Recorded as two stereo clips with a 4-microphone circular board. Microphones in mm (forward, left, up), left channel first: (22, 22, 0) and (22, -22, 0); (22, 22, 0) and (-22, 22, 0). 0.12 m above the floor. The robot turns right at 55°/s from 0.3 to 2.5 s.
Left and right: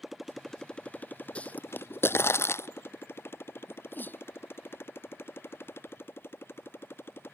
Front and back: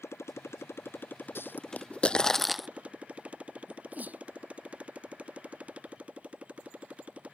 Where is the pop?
25° left; by 2.7 s 90° left.